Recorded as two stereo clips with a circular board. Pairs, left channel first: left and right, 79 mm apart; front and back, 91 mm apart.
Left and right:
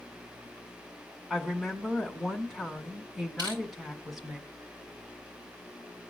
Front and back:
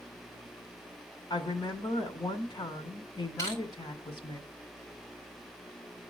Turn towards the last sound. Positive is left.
turn(degrees=-60)